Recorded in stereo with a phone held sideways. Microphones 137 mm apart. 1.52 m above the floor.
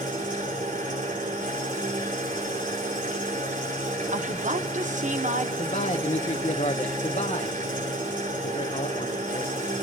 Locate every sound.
0.0 s an engine running: 80° right, 3.5 m
4.1 s a woman speaking: 65° right (ahead or behind), 1.1 m
5.6 s a man speaking: 55° left (ahead or behind), 0.8 m